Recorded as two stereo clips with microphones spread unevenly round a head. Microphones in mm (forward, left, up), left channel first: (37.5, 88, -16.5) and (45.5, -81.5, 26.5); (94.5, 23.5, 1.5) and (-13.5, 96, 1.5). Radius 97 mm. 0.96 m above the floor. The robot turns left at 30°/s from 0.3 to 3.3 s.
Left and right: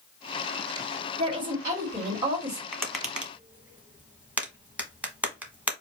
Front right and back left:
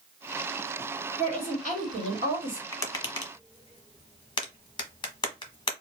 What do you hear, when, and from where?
1.2 s a woman speaking: 140° right, 1.5 m; by 2.6 s 175° left, 1.5 m
2.7 s tapping: 20° left, 1.1 m; by 5.7 s 5° left, 1.1 m